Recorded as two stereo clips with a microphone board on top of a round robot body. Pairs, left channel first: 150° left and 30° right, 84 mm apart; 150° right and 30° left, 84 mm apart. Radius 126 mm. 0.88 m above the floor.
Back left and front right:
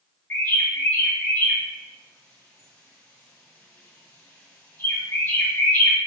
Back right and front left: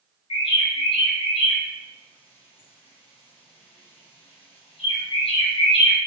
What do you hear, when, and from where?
0.3 s a bird: 145° right, 2 m